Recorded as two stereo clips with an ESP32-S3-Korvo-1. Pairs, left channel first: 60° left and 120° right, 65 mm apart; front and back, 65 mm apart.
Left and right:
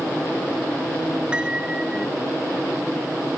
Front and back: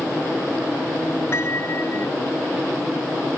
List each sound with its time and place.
1.3 s a piano: 45° right